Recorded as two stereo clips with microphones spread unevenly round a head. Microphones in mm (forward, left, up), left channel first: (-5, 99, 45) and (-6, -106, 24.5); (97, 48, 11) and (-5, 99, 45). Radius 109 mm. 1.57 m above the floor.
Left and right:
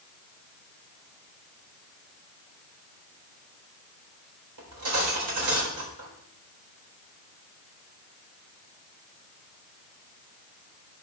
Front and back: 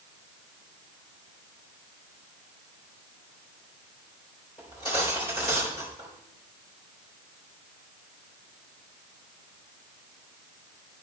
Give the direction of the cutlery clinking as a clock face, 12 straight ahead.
3 o'clock.